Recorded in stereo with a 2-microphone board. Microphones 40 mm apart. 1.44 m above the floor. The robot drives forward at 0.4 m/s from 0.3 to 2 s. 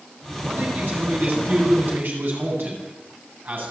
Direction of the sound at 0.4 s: 60° right (ahead or behind).